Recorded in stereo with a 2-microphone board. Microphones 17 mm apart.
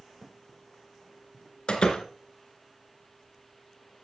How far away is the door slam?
About 2 m.